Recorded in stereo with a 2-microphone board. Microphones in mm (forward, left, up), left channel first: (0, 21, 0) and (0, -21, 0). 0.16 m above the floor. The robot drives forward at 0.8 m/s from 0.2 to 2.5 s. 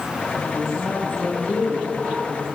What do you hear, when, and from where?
0.3 s a woman speaking: 40° left (ahead or behind), 4 m; by 2.5 s 30° left (ahead or behind), 5.5 m